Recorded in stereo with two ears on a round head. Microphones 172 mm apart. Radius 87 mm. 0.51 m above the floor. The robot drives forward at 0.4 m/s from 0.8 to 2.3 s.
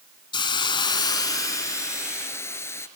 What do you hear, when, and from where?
0.3 s a hiss: 25° left (ahead or behind), 0.8 m; by 2.9 s 15° left (ahead or behind), 1.3 m